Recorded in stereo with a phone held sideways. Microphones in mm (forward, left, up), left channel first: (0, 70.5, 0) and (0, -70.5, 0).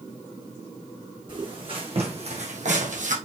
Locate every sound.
1.3 s footsteps: 35° right (ahead or behind), 3.5 m; by 3.1 s 65° right (ahead or behind), 2.5 m